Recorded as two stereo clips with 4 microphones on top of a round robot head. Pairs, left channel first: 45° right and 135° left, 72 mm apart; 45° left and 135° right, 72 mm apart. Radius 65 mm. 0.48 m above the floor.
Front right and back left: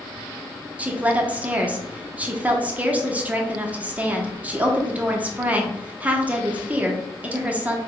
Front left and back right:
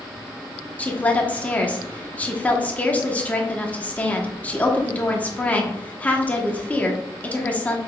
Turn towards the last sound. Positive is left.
turn(degrees=90)